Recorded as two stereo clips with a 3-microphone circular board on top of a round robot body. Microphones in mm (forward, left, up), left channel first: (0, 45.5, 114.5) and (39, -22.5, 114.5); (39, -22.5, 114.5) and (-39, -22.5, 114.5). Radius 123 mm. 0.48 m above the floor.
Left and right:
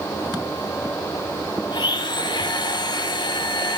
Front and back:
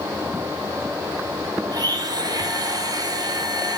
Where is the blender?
145° left, 1.7 m.